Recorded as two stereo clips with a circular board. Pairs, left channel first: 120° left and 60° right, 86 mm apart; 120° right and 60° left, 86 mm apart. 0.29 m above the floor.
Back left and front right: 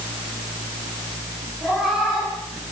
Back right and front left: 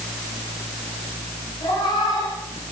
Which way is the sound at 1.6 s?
150° right.